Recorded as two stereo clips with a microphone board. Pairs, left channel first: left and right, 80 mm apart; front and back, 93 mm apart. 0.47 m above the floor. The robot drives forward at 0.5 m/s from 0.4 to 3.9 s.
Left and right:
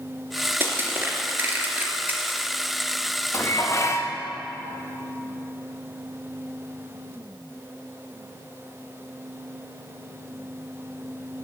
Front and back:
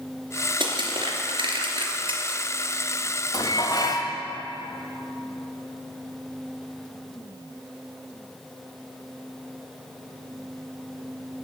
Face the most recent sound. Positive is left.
turn(degrees=40)